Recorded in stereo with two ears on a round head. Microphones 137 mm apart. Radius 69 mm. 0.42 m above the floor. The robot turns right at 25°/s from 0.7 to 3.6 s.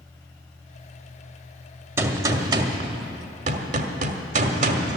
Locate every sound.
2.0 s a gunshot: 160° right, 1.1 m; by 5.0 s 120° right, 1.1 m